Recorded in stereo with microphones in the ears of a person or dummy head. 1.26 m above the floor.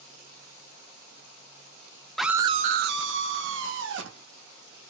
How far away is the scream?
About 0.6 m.